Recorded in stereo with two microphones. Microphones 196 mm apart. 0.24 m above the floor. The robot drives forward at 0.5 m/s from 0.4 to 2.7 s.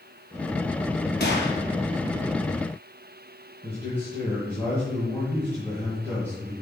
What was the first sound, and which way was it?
A gunshot, 60° left (ahead or behind).